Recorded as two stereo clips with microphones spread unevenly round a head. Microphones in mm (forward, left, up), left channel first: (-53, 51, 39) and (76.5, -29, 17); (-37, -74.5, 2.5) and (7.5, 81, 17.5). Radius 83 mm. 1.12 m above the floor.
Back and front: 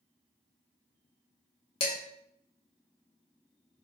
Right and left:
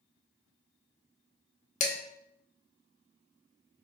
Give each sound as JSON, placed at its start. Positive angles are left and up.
{"t": 1.8, "sound": "dishes clattering", "azimuth_deg": -155, "distance_m": 0.9}